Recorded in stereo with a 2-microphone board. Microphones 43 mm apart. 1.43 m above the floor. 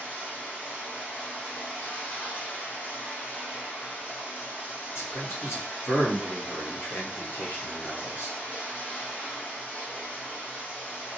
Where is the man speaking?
65° left (ahead or behind), 1.3 m.